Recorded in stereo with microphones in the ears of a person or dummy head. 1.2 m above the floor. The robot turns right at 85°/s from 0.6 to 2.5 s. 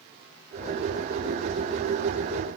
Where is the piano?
I don't hear a piano.